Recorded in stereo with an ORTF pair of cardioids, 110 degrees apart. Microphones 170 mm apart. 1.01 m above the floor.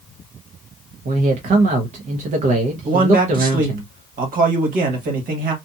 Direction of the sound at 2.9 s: 55° right.